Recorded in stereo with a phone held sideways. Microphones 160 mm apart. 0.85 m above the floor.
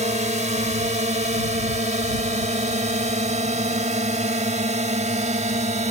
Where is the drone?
45° right (ahead or behind).